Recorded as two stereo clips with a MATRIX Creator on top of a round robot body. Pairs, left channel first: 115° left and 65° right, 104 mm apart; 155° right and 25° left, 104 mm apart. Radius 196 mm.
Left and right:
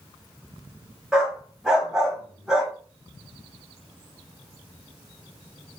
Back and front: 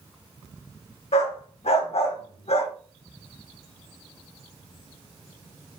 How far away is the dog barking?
About 1.4 m.